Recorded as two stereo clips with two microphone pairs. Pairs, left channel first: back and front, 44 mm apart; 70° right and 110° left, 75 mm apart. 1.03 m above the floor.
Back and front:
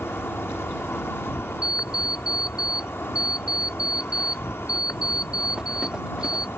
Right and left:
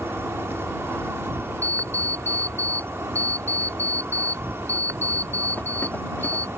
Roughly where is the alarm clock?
Ahead right.